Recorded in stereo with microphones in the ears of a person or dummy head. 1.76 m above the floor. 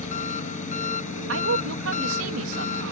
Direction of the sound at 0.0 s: 40° left (ahead or behind).